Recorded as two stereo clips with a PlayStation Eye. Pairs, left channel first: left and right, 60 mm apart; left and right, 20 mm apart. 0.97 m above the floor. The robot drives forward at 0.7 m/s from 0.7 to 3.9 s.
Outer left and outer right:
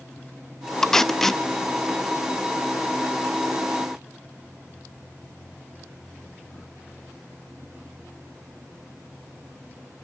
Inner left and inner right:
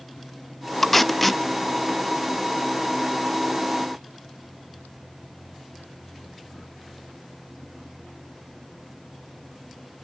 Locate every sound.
0.8 s tape being pulled: 5° left (ahead or behind), 0.6 m